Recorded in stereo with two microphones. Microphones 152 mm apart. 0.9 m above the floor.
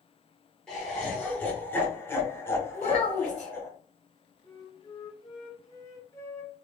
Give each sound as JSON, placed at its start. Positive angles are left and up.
{"t": 0.7, "sound": "laughter", "side_deg": 5, "distance_m": 1.0}
{"t": 2.7, "sound": "a child speaking", "side_deg": 35, "distance_m": 0.9}
{"t": 4.4, "sound": "a flute", "side_deg": 20, "distance_m": 0.9}